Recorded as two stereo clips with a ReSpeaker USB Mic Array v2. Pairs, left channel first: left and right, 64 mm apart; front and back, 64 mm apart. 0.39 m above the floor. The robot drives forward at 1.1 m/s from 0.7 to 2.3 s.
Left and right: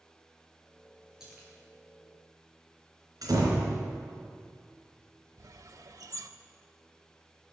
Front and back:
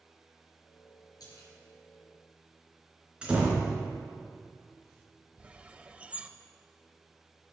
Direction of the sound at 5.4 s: 105° right.